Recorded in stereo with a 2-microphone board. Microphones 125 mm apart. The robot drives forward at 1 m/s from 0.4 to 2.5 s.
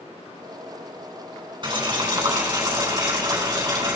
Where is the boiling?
35° right (ahead or behind), 3.5 m; by 4.0 s 30° right (ahead or behind), 4.5 m.